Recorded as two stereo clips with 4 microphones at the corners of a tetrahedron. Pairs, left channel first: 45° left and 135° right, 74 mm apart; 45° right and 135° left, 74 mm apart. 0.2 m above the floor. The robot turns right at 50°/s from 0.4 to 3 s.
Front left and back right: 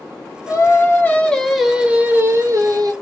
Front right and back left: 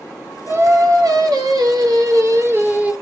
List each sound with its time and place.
0.5 s singing: 80° left, 0.5 m; by 2.9 s 155° right, 0.5 m